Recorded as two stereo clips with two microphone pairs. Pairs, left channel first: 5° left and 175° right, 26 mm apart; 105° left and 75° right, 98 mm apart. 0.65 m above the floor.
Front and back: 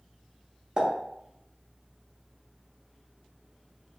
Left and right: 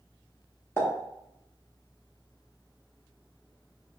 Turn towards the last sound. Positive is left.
turn(degrees=155)